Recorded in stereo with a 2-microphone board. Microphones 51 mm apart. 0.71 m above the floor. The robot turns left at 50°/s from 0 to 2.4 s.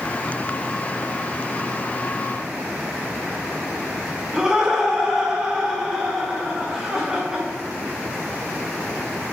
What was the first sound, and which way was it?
Laughter, 10° right (ahead or behind).